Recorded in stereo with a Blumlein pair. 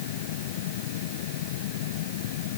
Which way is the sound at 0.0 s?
55° left.